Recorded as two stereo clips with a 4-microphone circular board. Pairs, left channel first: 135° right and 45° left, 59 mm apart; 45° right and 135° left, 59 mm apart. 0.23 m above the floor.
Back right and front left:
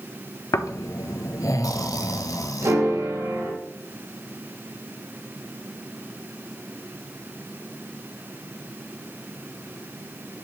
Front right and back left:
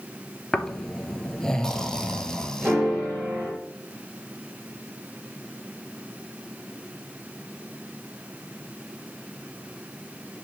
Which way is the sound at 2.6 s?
65° left.